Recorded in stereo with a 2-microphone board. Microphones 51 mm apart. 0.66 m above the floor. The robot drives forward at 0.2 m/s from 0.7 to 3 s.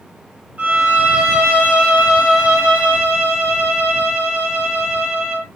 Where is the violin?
30° right (ahead or behind), 1.2 m; by 5.5 s 25° right (ahead or behind), 1.4 m.